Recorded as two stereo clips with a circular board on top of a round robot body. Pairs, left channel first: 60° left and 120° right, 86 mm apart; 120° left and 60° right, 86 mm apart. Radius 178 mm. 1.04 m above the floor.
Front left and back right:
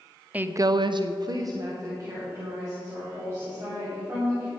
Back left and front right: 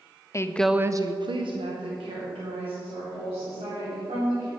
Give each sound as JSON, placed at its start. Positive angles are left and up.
{"t": 0.3, "sound": "a woman speaking", "azimuth_deg": 170, "distance_m": 0.7}